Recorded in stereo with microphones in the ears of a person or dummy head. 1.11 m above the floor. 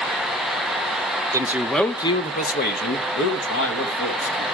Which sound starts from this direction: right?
A man speaking, at 1.3 s.